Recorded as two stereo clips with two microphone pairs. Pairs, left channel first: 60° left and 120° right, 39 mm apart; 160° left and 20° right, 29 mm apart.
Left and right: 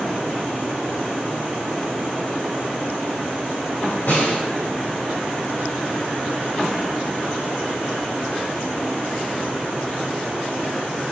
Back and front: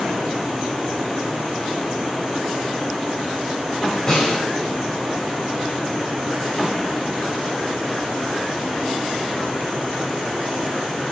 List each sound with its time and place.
4.1 s a snare drum: 95° left, 3 m